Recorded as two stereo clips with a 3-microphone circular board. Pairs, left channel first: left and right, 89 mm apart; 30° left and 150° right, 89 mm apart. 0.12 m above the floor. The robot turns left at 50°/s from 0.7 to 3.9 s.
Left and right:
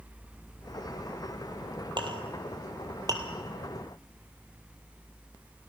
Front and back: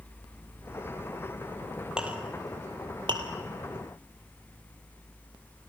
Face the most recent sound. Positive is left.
turn(degrees=-170)